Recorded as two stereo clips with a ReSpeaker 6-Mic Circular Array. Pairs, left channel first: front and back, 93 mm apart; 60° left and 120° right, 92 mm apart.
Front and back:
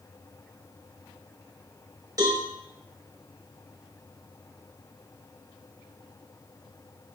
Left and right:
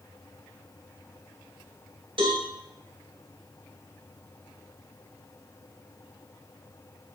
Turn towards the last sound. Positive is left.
turn(degrees=-135)